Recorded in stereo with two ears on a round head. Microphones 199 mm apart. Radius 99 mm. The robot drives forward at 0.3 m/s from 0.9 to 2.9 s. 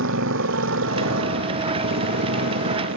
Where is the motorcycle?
60° right (ahead or behind).